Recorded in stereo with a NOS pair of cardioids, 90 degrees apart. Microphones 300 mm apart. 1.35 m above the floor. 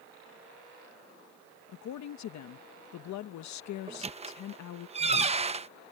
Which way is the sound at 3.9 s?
20° right.